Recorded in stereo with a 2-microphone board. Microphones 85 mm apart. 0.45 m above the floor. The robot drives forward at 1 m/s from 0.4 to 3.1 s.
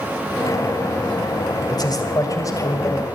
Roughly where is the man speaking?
Left.